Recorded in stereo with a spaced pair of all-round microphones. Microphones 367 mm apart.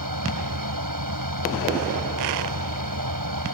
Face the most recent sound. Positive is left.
turn(degrees=-60)  # may be behind; listen again after turning